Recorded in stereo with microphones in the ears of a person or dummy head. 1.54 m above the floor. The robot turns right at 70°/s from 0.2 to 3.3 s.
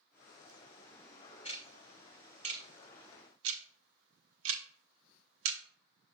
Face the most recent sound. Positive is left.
turn(degrees=-75)  # may be behind; listen again after turning